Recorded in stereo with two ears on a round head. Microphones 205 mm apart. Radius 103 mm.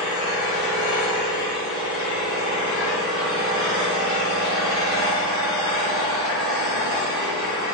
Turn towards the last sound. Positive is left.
turn(degrees=-20)  # may be behind; listen again after turning